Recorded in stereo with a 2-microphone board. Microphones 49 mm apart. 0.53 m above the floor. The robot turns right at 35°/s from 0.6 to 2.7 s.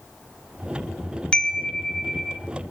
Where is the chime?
15° left (ahead or behind), 1.0 m; by 2.4 s centre (ahead or behind), 1.0 m.